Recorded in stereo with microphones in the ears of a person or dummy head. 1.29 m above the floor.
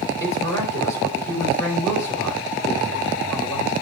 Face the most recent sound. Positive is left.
turn(degrees=15)  # may be behind; listen again after turning